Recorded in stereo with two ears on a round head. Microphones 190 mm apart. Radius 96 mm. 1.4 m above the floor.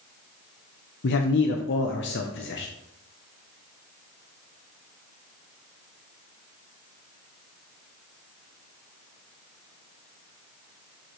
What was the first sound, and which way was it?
A man speaking, 55° left (ahead or behind).